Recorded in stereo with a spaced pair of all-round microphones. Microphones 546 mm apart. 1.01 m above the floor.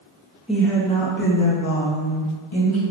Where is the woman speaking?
Centre (ahead or behind), 1.2 m; by 2.8 s 60° left (ahead or behind), 1.6 m.